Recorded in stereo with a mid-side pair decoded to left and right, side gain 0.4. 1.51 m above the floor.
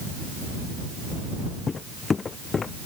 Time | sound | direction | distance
1.7 | footsteps | 40° left | ?